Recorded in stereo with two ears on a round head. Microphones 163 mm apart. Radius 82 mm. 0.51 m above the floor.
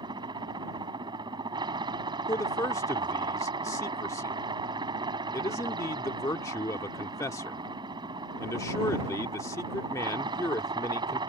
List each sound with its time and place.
0.0 s a helicopter: 25° right (ahead or behind)
2.3 s a man speaking: 15° left (ahead or behind)